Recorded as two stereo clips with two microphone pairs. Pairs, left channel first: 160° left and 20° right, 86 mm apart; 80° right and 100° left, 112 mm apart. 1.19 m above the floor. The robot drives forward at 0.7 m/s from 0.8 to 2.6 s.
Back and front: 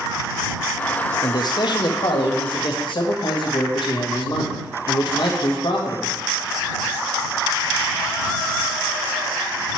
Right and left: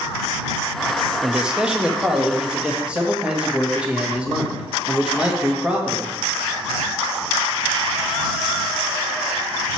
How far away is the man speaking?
About 0.6 m.